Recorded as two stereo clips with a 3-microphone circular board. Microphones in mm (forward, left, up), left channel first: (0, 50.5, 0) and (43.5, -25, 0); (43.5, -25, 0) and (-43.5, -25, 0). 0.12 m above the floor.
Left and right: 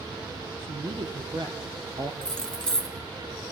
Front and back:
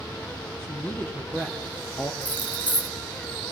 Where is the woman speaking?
65° right, 4.5 m; by 2.1 s 55° right, 2.5 m.